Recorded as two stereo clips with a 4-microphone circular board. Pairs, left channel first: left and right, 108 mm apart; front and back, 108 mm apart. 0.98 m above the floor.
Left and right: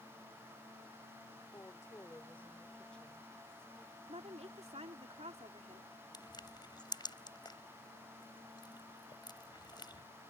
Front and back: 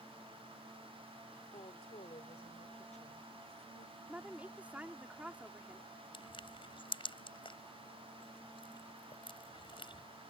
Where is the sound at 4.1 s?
105° right.